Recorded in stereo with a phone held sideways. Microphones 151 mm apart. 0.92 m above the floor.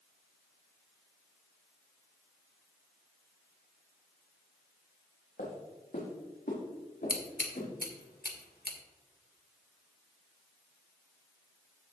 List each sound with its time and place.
5.4 s footsteps: 75° left (ahead or behind), 4 m; by 7.7 s 80° left, 6 m
7.1 s scissors: 90° left, 1.7 m